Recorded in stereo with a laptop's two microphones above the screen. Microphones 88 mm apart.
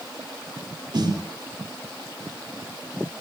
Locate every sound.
0.9 s a snare drum: 60° right (ahead or behind), 3.5 m